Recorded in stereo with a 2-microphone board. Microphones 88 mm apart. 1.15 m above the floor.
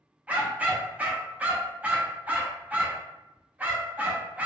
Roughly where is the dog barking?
Centre.